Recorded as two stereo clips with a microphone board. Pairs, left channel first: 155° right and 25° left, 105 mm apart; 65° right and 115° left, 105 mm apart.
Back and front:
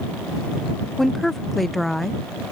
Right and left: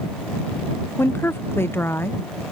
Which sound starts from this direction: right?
A woman speaking, at 1.0 s.